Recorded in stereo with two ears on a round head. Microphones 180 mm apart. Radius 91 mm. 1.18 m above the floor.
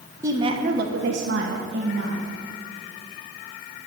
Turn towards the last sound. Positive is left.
turn(degrees=-55)  # may be behind; listen again after turning